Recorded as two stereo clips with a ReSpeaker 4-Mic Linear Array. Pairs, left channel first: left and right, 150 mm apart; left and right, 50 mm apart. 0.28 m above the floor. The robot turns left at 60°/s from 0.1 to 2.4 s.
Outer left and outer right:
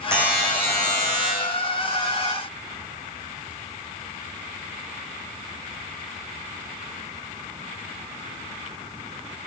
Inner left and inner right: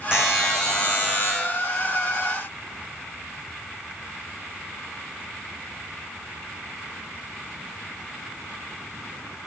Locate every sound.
0.1 s a buzzer: 165° right, 4 m; by 1.3 s 125° left, 4 m